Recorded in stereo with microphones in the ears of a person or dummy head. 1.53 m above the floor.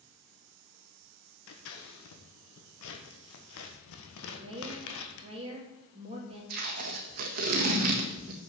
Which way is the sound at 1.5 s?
70° left (ahead or behind).